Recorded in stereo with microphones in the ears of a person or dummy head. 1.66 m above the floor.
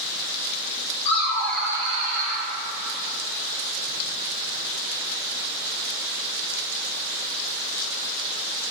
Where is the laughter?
35° left (ahead or behind), 1.0 m; by 2.4 s 60° right (ahead or behind), 1.1 m.